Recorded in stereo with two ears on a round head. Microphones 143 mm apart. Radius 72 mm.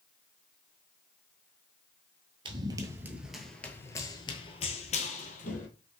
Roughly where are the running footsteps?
Right.